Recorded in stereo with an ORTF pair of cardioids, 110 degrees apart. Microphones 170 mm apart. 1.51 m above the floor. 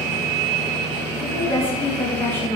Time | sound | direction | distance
1.2 | a woman speaking | 15° left | 3 m